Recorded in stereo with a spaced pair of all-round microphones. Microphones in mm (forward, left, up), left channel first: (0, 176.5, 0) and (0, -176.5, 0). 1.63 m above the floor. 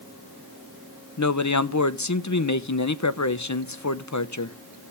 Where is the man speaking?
50° left (ahead or behind), 0.8 m.